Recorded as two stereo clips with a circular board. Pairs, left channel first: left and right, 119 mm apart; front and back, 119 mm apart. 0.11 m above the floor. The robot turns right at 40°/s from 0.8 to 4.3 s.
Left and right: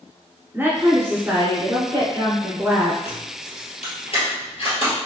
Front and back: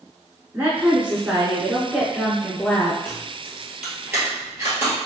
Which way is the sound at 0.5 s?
130° right.